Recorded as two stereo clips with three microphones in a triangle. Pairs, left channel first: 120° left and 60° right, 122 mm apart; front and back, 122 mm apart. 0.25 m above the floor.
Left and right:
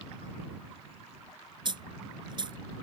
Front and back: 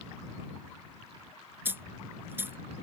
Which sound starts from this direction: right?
A dropped coin, at 1.6 s.